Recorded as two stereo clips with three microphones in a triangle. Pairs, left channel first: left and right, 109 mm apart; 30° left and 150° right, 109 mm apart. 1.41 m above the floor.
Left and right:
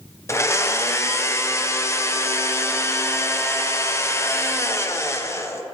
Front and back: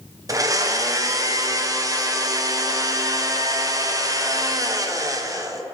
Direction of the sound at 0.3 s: 155° left.